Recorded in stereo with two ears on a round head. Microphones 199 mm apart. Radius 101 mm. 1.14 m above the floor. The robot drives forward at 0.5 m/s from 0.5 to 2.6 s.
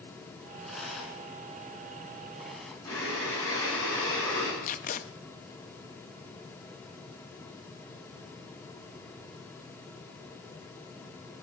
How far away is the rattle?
About 2.5 m.